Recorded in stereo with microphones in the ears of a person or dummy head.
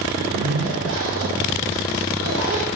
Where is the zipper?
75° right (ahead or behind), 0.7 m.